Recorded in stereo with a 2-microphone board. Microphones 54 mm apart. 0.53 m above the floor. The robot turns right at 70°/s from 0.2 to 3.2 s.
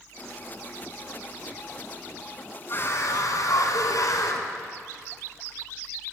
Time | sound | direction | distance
2.7 | a scream | 35° left | 5 m